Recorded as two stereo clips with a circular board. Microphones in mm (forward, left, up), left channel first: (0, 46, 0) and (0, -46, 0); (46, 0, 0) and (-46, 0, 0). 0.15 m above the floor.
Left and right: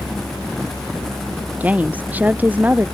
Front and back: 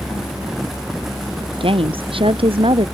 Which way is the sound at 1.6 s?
165° right.